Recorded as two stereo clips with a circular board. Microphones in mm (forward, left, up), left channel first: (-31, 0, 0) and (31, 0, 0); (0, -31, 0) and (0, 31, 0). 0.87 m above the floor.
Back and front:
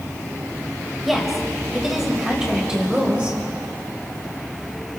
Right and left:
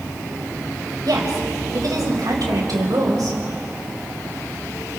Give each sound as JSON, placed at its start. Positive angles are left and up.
{"t": 1.0, "sound": "a woman speaking", "azimuth_deg": 90, "distance_m": 4.5}